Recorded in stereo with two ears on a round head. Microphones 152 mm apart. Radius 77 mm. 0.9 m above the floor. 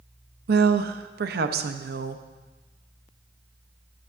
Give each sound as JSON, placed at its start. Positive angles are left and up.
{"t": 0.5, "sound": "a woman speaking", "side_deg": -65, "distance_m": 0.7}